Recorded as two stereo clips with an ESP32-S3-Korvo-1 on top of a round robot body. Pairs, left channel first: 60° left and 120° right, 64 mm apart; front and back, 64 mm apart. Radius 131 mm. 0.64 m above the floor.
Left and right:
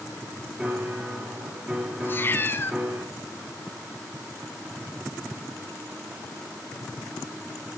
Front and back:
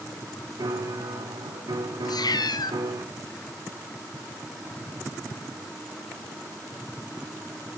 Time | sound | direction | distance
0.6 | a piano | 170° left | 3.5 m
2.0 | a cat meowing | straight ahead | 1.2 m